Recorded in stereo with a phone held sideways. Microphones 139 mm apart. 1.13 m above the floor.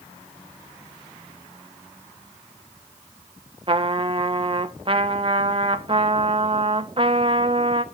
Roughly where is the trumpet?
Right.